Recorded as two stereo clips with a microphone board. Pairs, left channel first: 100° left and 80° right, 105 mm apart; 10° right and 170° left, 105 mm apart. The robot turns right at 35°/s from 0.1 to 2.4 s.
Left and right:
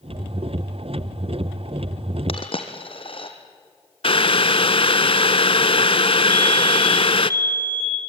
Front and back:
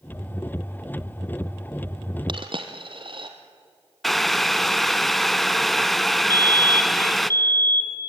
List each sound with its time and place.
2.3 s a dropped coin: 130° left, 2 m; by 3.3 s 135° left, 2 m
4.0 s boiling: 80° left, 0.6 m
6.3 s a fire alarm: 45° left, 3 m